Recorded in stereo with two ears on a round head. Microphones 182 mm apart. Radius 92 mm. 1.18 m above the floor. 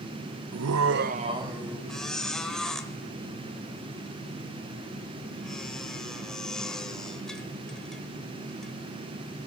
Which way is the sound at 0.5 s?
80° right.